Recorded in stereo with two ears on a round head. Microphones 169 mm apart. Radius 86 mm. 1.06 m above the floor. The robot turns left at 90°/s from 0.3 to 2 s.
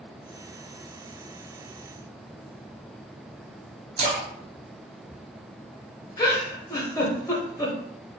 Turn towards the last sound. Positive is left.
turn(degrees=15)  # may be behind; listen again after turning